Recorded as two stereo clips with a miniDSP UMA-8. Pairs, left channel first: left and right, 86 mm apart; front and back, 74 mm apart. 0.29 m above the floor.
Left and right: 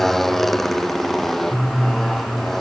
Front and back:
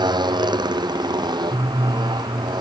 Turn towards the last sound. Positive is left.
turn(degrees=175)